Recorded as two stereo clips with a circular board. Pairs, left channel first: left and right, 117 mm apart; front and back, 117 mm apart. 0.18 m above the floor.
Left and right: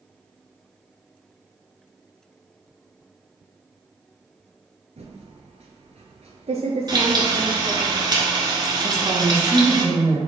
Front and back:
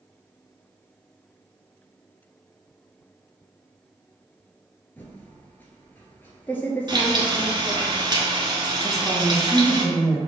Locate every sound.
5.0 s typing on a keyboard: 75° right, 0.9 m
6.9 s frying: 135° right, 1.1 m
8.8 s a woman speaking: 90° right, 1.1 m